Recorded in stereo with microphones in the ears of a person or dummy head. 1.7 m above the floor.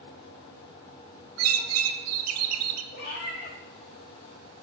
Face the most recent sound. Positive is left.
turn(degrees=45)  # may be behind; listen again after turning